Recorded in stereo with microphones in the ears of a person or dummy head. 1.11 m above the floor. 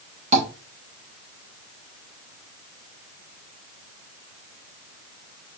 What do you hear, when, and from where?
0.3 s tapping: 35° right (ahead or behind), 1.1 m